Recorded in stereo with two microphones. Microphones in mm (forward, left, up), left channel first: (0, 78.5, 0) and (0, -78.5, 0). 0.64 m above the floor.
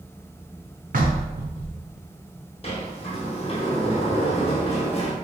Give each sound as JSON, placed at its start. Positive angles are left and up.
{"t": 0.9, "sound": "knocking", "side_deg": -60, "distance_m": 0.6}
{"t": 2.6, "sound": "a sliding door", "side_deg": 40, "distance_m": 0.6}